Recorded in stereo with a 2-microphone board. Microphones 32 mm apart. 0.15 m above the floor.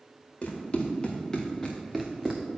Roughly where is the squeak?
I don't hear a squeak.